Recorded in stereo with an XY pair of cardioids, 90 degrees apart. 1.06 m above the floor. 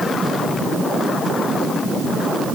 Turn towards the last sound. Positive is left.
No sound to turn to.